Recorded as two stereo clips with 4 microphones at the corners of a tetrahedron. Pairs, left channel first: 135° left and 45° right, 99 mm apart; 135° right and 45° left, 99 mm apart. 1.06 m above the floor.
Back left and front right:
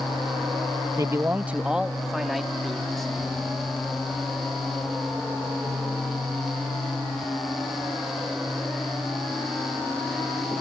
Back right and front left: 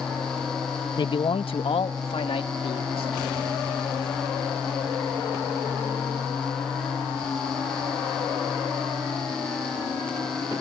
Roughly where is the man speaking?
Right.